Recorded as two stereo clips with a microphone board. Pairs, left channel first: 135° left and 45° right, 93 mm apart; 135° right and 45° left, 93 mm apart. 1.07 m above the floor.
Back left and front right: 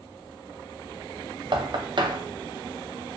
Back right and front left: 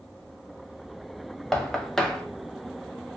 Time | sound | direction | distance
1.5 | knocking | 55° right | 0.6 m